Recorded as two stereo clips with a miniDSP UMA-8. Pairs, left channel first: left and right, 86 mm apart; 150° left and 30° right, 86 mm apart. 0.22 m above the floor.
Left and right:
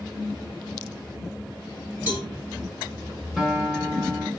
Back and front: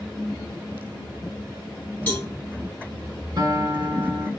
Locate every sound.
2.1 s a cowbell: 145° right, 2 m
3.4 s a guitar: 5° right, 1.1 m